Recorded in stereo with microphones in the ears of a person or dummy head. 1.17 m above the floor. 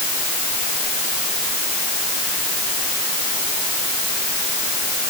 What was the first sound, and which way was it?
Only background noise.